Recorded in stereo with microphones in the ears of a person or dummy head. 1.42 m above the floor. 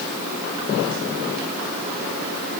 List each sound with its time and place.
Only background noise.